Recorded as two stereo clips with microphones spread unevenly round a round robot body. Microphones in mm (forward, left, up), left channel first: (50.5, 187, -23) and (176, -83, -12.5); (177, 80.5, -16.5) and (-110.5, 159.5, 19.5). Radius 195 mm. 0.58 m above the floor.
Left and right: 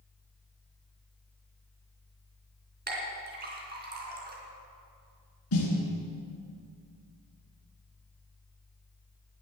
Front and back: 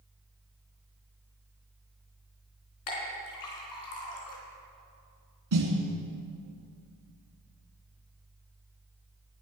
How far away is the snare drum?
About 2.5 m.